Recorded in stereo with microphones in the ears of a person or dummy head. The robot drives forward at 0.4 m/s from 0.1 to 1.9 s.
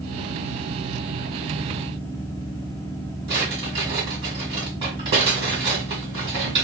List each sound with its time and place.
3.3 s a drawer: 30° right (ahead or behind), 1.4 m